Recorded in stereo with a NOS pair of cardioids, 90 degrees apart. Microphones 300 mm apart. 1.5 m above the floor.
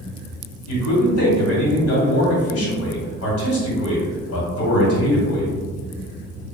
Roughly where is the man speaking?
Ahead left.